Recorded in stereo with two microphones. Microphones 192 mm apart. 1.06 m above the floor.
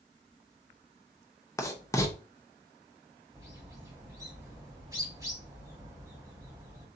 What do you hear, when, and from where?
1.6 s writing: 15° left (ahead or behind), 0.9 m
3.3 s a bird: 15° right (ahead or behind), 1.6 m